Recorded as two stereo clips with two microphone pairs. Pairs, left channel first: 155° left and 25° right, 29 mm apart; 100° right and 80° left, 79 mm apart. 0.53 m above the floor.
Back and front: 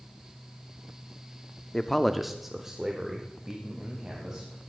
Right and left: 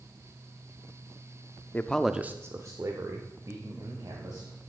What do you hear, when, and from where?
1.7 s a man speaking: 150° right, 0.7 m; by 4.5 s 45° left, 3 m